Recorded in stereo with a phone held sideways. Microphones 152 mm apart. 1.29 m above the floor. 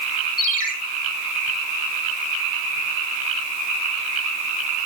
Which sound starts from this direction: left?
A ringtone, at 0.4 s.